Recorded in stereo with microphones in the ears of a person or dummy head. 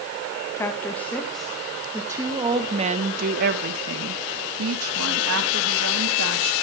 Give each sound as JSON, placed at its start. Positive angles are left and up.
{"t": 0.6, "sound": "a woman speaking", "side_deg": 15, "distance_m": 2.0}